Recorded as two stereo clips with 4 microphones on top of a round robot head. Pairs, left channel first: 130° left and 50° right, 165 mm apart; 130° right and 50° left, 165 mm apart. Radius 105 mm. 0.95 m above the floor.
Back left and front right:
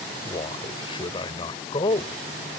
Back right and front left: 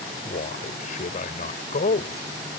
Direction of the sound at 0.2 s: 170° right.